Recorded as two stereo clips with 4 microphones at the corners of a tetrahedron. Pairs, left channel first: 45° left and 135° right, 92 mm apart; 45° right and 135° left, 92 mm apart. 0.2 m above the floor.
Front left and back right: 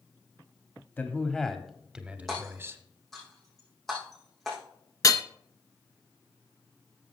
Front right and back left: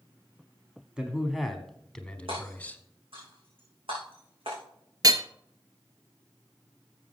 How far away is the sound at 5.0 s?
About 0.6 m.